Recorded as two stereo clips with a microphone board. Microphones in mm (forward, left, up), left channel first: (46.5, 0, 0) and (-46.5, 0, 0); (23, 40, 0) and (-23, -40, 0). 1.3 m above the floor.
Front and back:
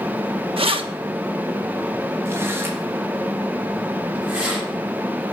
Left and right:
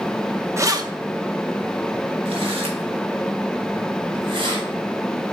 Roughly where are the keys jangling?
Behind.